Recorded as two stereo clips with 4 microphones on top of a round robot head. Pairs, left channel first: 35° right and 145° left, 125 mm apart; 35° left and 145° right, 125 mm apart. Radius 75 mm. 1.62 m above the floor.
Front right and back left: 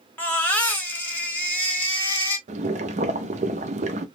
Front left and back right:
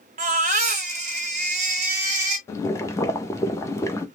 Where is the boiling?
105° left, 0.7 m.